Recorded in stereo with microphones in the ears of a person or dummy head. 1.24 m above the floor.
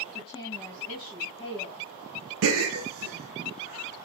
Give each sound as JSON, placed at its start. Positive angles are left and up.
{"t": 0.1, "sound": "a woman speaking", "side_deg": 15, "distance_m": 1.5}
{"t": 2.4, "sound": "a gasp", "side_deg": -65, "distance_m": 0.7}